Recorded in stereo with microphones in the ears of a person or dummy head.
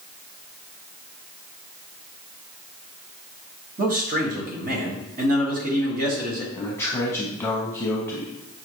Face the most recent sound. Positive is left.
turn(degrees=5)  # may be behind; listen again after turning